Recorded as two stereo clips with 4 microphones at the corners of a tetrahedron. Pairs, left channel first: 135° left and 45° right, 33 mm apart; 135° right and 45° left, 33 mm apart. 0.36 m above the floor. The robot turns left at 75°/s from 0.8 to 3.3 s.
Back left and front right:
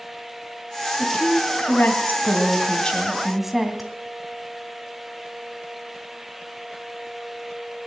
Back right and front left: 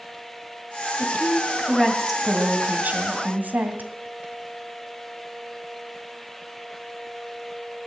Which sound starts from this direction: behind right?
A woman speaking, at 1.0 s.